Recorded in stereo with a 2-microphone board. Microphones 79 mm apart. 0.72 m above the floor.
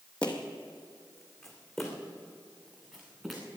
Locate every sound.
0.2 s footsteps: 15° left (ahead or behind), 1.5 m; by 3.4 s 5° right (ahead or behind), 3.5 m